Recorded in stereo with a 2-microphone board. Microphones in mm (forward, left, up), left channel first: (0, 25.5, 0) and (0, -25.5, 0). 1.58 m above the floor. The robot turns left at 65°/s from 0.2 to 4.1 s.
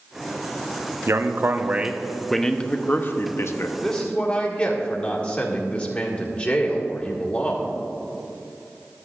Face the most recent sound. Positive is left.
turn(degrees=25)  # may be behind; listen again after turning